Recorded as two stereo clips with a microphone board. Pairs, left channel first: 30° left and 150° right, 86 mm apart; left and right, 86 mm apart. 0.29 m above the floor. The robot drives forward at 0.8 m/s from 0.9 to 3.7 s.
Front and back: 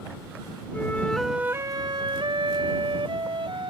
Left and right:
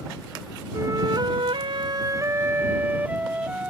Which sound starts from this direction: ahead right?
A flute, at 0.7 s.